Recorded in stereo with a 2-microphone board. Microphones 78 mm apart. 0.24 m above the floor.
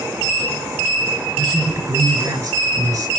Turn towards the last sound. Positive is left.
turn(degrees=-45)  # may be behind; listen again after turning